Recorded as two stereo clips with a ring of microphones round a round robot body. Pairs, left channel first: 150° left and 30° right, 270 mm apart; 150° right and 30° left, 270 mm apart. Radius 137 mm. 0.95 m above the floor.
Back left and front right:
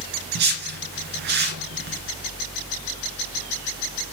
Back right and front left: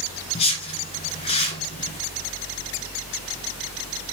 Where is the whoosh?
80° right, 2 m.